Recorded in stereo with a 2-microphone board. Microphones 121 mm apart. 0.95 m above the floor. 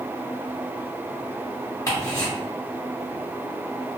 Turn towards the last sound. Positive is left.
turn(degrees=25)  # may be behind; listen again after turning